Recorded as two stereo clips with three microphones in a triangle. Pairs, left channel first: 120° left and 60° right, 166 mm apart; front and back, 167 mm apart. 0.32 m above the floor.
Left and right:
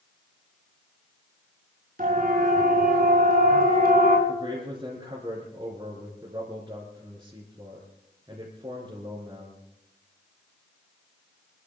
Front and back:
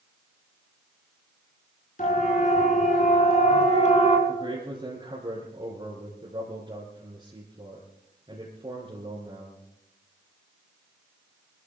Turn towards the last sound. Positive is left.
turn(degrees=-125)